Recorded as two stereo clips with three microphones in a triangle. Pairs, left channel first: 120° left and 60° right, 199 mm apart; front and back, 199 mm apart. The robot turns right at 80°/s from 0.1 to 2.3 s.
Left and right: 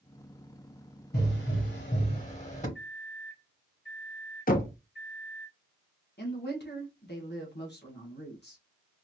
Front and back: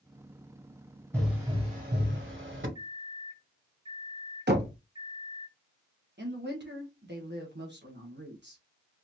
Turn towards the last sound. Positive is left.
turn(degrees=150)